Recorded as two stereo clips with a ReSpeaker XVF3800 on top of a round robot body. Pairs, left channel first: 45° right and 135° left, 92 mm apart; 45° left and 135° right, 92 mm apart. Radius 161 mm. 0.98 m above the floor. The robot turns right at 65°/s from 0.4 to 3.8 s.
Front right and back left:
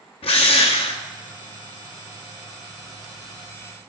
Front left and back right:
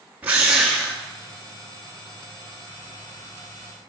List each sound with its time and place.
0.2 s a drill: 60° right, 0.6 m; by 1.0 s 20° right, 0.6 m